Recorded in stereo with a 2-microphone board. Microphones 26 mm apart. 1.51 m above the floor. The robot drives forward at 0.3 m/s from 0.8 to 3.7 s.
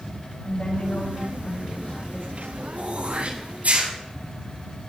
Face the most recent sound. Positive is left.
turn(degrees=-80)